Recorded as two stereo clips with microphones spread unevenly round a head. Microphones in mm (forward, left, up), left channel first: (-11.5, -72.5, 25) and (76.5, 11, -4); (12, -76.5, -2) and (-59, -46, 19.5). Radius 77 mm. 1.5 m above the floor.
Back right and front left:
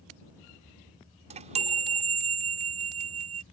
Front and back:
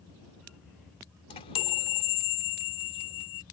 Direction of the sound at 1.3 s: 10° left.